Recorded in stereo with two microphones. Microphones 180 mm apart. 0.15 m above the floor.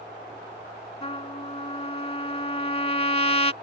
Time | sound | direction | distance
1.0 | a trumpet | 35° left (ahead or behind) | ?